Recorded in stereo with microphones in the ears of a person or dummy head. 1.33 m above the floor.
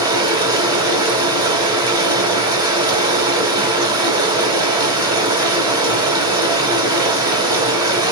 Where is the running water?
20° right (ahead or behind), 1.7 m.